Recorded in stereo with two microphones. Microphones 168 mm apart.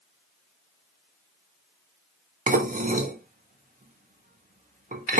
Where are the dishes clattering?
55° right (ahead or behind), 0.6 m.